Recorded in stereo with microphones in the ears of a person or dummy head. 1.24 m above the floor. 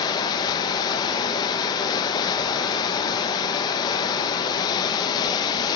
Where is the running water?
20° left (ahead or behind), 1.0 m.